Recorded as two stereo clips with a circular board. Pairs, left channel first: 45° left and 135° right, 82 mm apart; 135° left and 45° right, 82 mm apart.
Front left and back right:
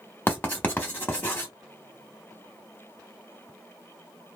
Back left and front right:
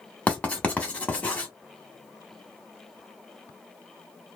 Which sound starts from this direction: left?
Writing, at 0.3 s.